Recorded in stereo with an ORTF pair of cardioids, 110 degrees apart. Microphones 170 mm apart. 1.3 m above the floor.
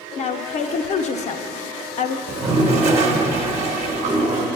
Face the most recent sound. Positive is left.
turn(degrees=-45)